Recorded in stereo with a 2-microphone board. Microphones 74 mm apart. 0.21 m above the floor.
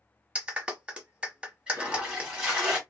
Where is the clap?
15° right (ahead or behind), 1.0 m.